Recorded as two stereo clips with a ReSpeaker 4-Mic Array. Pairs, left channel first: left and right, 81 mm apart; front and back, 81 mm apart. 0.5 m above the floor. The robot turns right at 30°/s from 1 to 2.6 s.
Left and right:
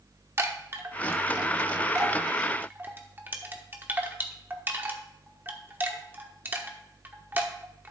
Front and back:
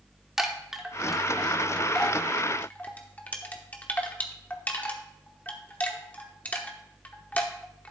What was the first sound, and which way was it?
A chime, 100° right.